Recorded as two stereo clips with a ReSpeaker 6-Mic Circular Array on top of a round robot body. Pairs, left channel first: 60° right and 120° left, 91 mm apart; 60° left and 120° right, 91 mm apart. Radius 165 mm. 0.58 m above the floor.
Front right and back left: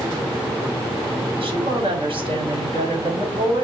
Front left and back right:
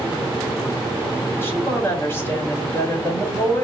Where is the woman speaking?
125° left, 2.0 m.